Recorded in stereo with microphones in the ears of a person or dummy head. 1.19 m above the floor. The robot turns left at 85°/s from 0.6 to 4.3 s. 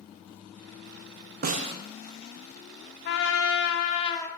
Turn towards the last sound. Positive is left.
turn(degrees=15)